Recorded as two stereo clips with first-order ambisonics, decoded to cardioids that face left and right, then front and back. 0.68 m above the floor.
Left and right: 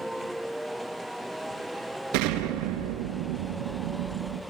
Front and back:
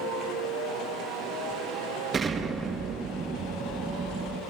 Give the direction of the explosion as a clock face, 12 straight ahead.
4 o'clock.